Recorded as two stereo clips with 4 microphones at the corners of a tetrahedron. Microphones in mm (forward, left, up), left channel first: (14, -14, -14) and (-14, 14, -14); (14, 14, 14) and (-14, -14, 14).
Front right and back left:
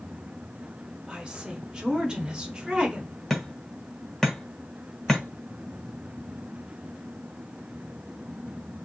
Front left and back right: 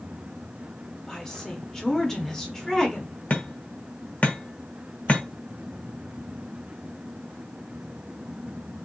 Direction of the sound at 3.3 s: 35° left.